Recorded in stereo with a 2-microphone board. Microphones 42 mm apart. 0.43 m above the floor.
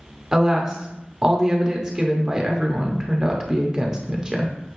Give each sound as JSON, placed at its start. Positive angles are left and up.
{"t": 0.3, "sound": "a woman speaking", "side_deg": -15, "distance_m": 0.8}